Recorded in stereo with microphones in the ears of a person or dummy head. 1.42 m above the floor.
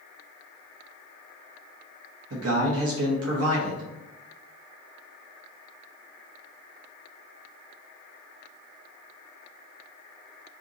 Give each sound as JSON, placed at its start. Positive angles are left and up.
{"t": 2.3, "sound": "a man speaking", "side_deg": -70, "distance_m": 0.7}